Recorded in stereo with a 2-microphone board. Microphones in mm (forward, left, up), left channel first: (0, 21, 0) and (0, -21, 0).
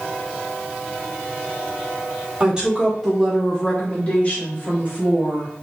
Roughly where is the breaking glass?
No breaking glass in this recording.